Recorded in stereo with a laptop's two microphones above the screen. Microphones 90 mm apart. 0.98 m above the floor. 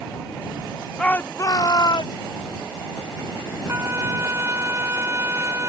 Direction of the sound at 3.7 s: 30° right (ahead or behind).